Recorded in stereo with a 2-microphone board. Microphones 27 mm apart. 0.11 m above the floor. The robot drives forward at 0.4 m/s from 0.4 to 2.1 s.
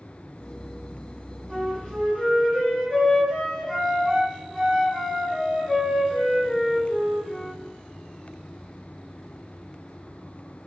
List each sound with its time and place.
1.5 s a flute: 20° left (ahead or behind), 1.7 m